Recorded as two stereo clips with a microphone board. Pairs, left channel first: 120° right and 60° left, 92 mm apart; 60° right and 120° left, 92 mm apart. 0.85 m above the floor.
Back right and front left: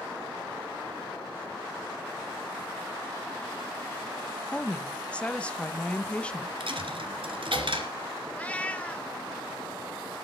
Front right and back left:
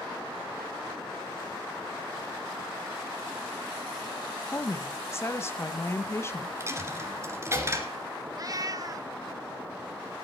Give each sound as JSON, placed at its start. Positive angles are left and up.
{"t": 4.5, "sound": "a woman speaking", "azimuth_deg": -60, "distance_m": 0.9}
{"t": 6.6, "sound": "a dropped coin", "azimuth_deg": 60, "distance_m": 1.9}
{"t": 8.3, "sound": "a cat meowing", "azimuth_deg": 165, "distance_m": 0.6}